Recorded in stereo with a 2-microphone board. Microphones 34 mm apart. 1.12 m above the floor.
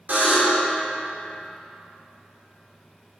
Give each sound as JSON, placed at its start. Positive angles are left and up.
{"t": 0.1, "sound": "a buzzer", "side_deg": -55, "distance_m": 3.0}